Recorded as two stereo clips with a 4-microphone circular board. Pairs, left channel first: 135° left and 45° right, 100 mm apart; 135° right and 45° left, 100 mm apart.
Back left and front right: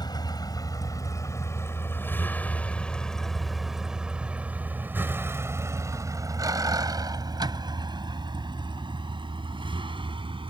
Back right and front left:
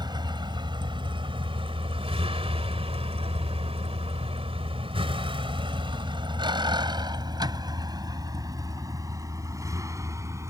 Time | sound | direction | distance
0.0 | a vehicle | 90° left | ?